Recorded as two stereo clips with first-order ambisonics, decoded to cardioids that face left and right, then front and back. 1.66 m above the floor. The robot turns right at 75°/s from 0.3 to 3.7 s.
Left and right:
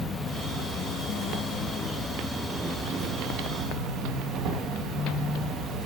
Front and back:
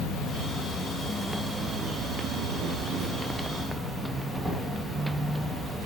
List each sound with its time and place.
0.0 s an insect: 20° left, 1.1 m; by 5.9 s 85° right, 1.1 m